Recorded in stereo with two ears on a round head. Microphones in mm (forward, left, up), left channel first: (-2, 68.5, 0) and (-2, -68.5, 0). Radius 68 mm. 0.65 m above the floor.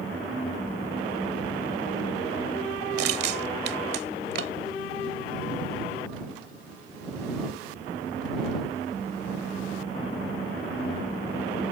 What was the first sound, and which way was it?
Crushing, 75° right (ahead or behind).